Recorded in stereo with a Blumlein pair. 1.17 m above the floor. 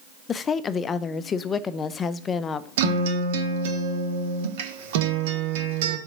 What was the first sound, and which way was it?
A woman speaking, 20° left.